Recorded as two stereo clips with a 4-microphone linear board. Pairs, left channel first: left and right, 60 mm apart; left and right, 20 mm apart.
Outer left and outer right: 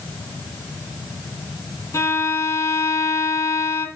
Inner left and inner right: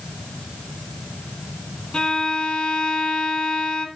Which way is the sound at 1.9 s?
60° left (ahead or behind).